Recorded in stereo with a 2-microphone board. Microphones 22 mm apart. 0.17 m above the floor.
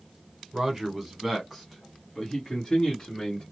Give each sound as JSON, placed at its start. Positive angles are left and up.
{"t": 0.5, "sound": "a man speaking", "side_deg": -15, "distance_m": 1.3}